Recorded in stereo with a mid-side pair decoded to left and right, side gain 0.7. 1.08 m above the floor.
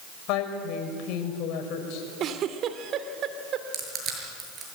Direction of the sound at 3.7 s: 40° right.